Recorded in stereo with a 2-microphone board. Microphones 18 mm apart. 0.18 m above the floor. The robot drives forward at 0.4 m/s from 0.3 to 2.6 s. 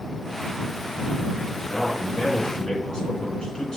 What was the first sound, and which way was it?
A man speaking, 45° left (ahead or behind).